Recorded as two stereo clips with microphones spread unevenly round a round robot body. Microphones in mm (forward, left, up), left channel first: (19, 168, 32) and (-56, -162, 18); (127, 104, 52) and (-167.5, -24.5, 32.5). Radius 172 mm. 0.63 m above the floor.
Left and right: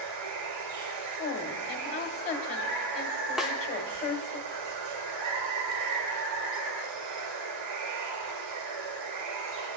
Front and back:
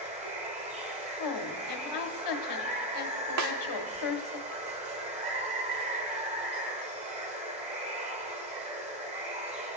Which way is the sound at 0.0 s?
85° right.